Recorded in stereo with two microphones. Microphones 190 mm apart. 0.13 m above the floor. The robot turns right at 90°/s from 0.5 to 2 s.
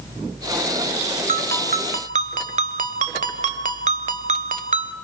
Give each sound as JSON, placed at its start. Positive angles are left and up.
{"t": 1.3, "sound": "a ringtone", "azimuth_deg": -120, "distance_m": 0.7}